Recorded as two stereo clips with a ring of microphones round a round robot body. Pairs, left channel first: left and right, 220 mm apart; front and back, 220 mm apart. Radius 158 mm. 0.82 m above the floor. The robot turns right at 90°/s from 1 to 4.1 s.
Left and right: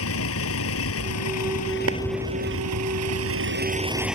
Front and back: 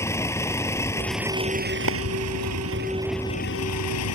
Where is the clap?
140° right; by 2.0 s 130° right.